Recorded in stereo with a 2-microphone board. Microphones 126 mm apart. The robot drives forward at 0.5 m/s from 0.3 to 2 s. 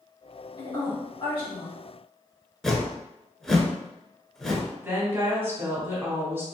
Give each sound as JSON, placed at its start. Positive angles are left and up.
{"t": 0.6, "sound": "a woman speaking", "side_deg": 35, "distance_m": 1.8}
{"t": 2.6, "sound": "a whoosh", "side_deg": 5, "distance_m": 0.5}
{"t": 4.8, "sound": "a woman speaking", "side_deg": -20, "distance_m": 1.2}